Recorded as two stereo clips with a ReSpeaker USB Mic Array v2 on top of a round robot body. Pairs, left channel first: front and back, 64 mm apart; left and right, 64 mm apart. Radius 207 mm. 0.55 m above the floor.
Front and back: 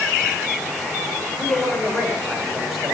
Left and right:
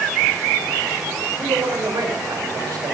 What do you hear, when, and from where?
1.4 s a man speaking: 65° right, 4 m; by 3.0 s 95° right, 4 m